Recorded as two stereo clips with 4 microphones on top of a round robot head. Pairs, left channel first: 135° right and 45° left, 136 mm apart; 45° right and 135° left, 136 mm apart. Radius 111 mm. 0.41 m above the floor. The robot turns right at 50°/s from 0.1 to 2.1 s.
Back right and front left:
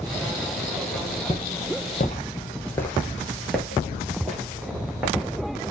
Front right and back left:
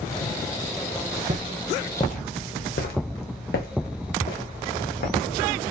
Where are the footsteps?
165° left, 0.6 m; by 5.4 s 40° right, 2.5 m.